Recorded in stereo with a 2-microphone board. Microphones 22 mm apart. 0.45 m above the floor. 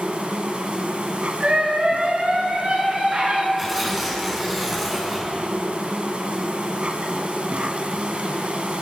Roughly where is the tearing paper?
Centre.